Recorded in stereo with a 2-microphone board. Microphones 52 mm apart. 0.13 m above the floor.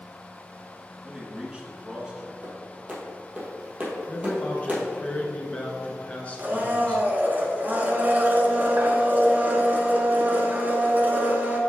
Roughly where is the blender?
Right.